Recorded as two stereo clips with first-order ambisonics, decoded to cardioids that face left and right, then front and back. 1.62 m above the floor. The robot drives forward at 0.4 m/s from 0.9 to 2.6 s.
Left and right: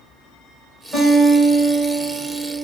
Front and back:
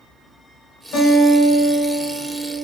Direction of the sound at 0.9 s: 25° right.